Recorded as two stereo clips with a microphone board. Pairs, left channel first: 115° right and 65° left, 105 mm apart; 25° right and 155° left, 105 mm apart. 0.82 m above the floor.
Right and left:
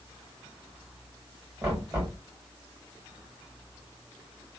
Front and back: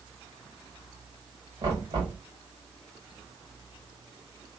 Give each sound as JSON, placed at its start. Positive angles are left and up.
{"t": 1.6, "sound": "knocking", "azimuth_deg": 130, "distance_m": 1.4}